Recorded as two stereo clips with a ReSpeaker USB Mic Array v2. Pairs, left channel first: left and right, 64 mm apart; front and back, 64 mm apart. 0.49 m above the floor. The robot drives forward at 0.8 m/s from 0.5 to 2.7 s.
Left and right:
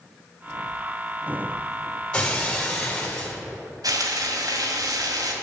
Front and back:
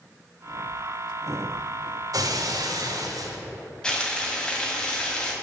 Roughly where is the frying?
Right.